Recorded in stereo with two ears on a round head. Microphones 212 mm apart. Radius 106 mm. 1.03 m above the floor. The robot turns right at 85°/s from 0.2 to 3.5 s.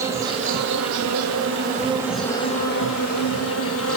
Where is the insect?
165° right, 4.5 m; by 4.0 s 115° left, 4.5 m.